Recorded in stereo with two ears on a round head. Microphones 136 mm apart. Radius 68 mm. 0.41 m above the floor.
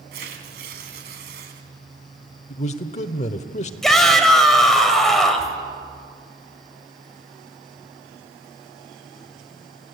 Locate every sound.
0.1 s tearing paper: 75° right (ahead or behind), 3 m
2.5 s a man speaking: 45° left (ahead or behind), 1.0 m
3.8 s a shout: centre (ahead or behind), 2 m